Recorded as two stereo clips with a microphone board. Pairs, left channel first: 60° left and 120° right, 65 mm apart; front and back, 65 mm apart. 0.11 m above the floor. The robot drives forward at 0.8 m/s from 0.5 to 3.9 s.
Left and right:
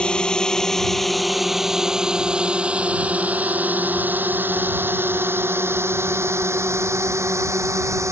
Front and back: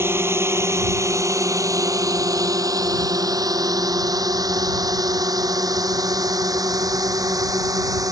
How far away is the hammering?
I don't hear hammering.